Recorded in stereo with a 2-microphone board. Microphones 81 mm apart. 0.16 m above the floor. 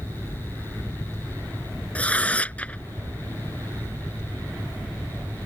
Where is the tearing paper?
15° left (ahead or behind).